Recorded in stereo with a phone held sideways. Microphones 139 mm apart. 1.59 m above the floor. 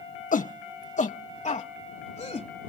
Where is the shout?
80° left; by 2.7 s 55° left (ahead or behind).